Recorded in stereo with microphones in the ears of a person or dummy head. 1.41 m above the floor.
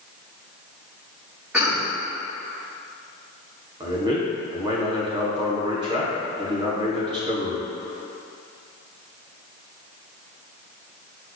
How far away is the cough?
About 2.5 m.